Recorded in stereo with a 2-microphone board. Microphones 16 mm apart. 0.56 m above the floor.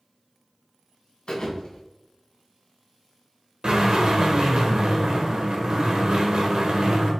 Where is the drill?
70° right (ahead or behind), 1.5 m.